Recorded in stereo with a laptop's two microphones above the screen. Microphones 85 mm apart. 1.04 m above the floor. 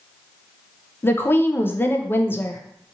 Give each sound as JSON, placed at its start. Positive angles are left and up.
{"t": 1.0, "sound": "a woman speaking", "side_deg": 25, "distance_m": 0.5}